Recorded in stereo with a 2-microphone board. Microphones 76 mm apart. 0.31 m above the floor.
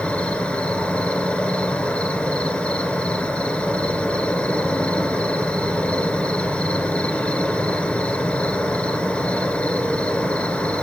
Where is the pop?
I don't hear a pop.